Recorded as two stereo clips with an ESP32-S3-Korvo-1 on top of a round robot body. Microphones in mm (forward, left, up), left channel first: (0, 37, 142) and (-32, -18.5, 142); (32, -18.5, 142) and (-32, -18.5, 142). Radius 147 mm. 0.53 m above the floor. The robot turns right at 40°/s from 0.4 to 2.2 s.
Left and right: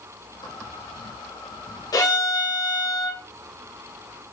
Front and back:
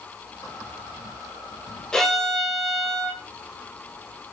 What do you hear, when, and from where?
1.9 s a violin: 80° left, 2 m; by 3.2 s 90° left, 2 m